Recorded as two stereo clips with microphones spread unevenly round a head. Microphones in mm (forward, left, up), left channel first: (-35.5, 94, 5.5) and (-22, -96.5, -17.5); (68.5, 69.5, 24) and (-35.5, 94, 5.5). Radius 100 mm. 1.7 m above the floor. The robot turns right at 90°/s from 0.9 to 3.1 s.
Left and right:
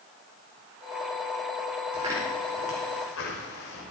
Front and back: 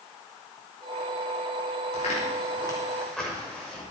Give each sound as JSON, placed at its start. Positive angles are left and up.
{"t": 1.9, "sound": "footsteps", "azimuth_deg": -30, "distance_m": 5.0}